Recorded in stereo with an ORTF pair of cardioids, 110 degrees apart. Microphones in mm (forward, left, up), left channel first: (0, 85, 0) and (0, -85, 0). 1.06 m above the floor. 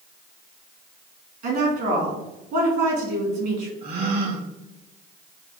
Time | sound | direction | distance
1.4 | a woman speaking | 65° right | 1.8 m
3.8 | a gasp | 65° right | 1.3 m